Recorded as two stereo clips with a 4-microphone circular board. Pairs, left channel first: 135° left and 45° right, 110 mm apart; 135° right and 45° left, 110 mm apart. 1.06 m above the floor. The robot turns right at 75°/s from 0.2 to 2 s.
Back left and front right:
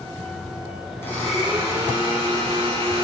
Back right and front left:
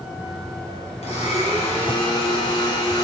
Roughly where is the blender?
Behind.